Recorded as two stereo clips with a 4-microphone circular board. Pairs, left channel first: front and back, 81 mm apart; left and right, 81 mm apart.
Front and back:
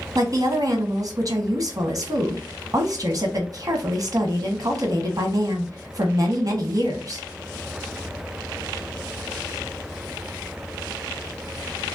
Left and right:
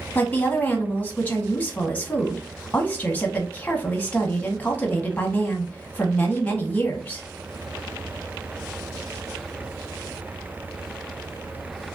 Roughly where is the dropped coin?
I don't hear a dropped coin.